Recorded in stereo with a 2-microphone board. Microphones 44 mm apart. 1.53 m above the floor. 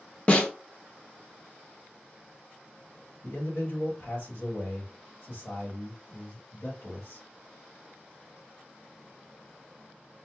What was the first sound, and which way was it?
A snare drum, 30° left (ahead or behind).